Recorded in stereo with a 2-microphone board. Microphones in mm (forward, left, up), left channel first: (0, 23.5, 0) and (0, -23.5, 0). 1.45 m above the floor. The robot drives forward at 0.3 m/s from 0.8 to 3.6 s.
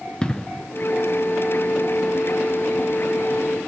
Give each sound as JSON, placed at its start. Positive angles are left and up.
{"t": 0.2, "sound": "an explosion", "side_deg": 15, "distance_m": 0.9}